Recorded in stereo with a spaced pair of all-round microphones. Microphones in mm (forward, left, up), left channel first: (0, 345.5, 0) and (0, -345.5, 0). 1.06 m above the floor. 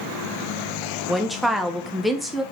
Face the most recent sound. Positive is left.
turn(degrees=0)  # may be behind; listen again after turning